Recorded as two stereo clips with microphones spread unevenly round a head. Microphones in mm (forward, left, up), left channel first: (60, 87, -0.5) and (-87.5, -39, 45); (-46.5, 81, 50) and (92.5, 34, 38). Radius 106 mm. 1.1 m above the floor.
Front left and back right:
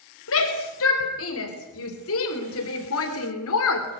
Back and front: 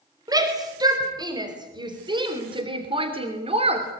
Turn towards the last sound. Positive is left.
turn(degrees=30)